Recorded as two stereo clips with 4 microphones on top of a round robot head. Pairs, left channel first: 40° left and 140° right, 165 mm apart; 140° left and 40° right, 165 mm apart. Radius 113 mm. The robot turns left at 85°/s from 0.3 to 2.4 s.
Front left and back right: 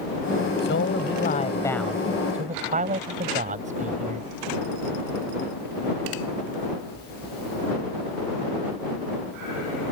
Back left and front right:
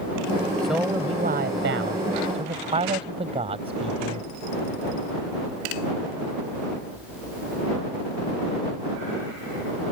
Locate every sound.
0.6 s a man speaking: 60° left; by 4.3 s 95° right